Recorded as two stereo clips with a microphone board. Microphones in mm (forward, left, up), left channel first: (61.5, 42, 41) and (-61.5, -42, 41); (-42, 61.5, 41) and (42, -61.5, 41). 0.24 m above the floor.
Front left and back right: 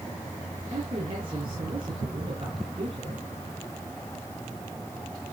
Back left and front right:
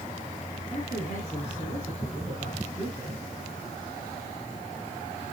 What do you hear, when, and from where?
0.7 s a man speaking: 165° left, 5 m